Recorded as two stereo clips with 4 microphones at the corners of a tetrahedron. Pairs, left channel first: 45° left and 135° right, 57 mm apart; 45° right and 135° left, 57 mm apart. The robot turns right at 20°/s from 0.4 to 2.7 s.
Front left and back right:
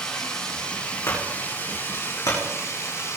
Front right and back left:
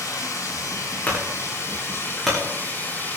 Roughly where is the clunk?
Ahead.